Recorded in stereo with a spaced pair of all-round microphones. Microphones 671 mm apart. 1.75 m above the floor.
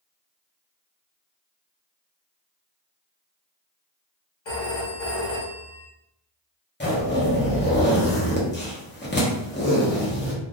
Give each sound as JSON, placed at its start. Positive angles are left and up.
{"t": 4.5, "sound": "a phone ringing", "side_deg": 40, "distance_m": 1.0}
{"t": 6.8, "sound": "a zipper", "side_deg": 15, "distance_m": 0.7}